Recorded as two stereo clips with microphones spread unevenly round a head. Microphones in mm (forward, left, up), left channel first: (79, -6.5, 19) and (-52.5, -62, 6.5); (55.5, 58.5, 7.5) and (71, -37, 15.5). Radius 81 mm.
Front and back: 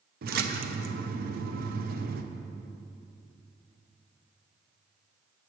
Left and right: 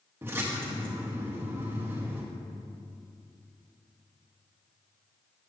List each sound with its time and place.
0.2 s a splash: 155° right, 0.7 m